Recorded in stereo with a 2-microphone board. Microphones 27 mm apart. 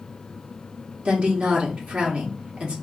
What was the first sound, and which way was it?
A woman speaking, 50° right (ahead or behind).